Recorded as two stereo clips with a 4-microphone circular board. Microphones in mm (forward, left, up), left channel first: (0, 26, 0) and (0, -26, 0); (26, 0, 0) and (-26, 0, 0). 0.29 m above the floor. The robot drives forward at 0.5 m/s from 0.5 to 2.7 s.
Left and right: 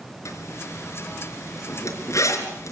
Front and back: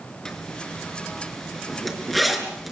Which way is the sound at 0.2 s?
80° left.